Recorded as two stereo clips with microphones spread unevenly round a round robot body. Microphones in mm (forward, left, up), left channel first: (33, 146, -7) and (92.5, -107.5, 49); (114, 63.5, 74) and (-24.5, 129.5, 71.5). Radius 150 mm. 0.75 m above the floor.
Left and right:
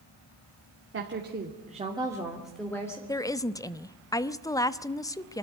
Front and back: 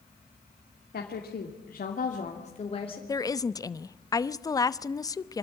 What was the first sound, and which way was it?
A woman speaking, 30° right.